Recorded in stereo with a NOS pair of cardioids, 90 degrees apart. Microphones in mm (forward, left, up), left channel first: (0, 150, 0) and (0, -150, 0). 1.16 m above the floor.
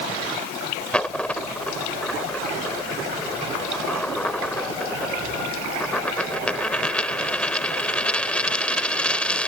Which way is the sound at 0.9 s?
5° left.